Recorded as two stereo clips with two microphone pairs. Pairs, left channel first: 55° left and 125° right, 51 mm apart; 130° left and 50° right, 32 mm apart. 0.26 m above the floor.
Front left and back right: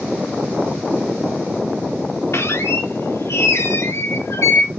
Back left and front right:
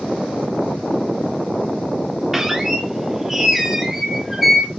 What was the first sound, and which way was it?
A squeak, 30° left.